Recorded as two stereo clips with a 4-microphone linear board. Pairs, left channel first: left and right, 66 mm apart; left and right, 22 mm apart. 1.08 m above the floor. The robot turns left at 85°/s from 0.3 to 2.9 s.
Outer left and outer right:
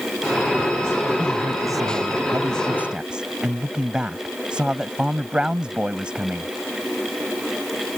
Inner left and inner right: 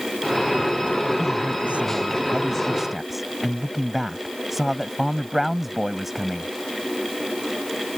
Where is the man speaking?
20° right; by 6.5 s 165° right.